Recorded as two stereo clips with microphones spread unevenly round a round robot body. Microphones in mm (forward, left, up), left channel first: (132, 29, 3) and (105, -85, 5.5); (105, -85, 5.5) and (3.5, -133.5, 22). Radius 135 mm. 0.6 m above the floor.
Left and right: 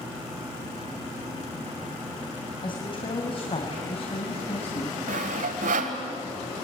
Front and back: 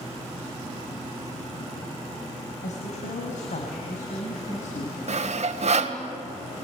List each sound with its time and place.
2.6 s a woman speaking: 30° left, 3.5 m; by 5.0 s 50° left, 4 m
5.1 s sawing: 130° right, 1.8 m